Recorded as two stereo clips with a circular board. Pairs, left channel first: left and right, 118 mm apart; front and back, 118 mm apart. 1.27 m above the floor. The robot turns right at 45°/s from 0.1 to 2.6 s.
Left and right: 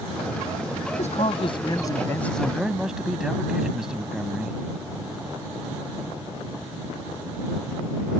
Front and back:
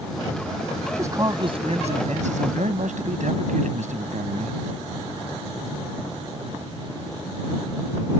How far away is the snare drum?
No snare drum in this recording.